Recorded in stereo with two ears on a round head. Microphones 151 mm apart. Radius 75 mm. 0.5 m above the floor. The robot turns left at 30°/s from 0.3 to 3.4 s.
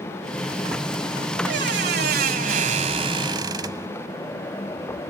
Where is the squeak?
95° right; by 3.9 s 155° right.